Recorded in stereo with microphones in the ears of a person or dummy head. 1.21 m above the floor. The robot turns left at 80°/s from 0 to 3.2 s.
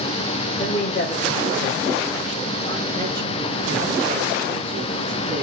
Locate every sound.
0.6 s a man speaking: 140° left, 1.5 m; by 5.4 s 70° right, 1.5 m